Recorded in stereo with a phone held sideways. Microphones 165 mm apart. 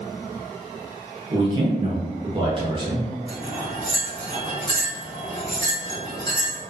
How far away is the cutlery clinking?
About 1.6 m.